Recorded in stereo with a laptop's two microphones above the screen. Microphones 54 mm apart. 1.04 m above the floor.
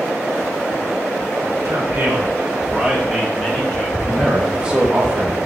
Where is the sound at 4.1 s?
15° right (ahead or behind), 0.9 m.